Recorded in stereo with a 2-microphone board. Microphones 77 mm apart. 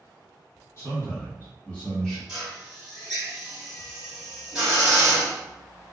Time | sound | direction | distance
0.8 | a man speaking | 35° left (ahead or behind) | 1.6 m
2.3 | a drill | 10° right (ahead or behind) | 1.2 m